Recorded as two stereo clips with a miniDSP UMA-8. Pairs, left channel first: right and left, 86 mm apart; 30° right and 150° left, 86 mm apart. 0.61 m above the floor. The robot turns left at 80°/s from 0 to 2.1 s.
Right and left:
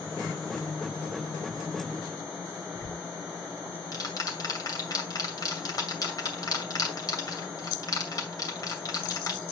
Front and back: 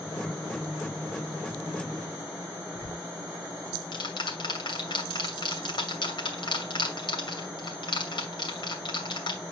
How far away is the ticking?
About 2.5 m.